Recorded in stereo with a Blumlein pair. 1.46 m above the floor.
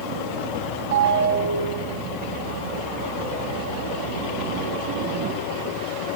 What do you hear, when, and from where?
0.9 s a ringtone: 60° right, 5 m